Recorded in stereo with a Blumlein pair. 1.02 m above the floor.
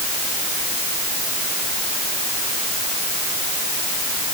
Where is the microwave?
I don't hear a microwave.